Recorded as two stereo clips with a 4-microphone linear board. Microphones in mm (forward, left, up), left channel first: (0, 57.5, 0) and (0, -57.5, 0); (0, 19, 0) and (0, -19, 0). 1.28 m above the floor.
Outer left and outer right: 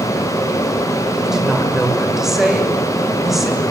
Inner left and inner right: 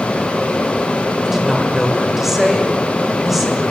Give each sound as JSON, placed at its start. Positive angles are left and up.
{"t": 1.2, "sound": "a woman speaking", "side_deg": -5, "distance_m": 6.0}